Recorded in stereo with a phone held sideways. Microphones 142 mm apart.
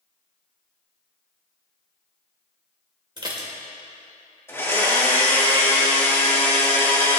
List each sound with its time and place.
3.2 s dishes clattering: 35° right (ahead or behind), 2 m
4.5 s a blender: 15° left (ahead or behind), 2.5 m